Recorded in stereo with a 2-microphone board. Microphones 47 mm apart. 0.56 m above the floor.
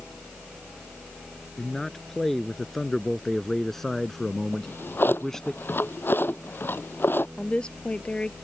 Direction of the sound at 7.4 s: 20° left (ahead or behind).